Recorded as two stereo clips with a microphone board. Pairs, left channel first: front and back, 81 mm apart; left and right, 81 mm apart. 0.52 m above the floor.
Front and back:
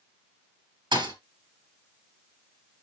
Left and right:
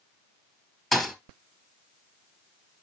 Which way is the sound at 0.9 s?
Straight behind.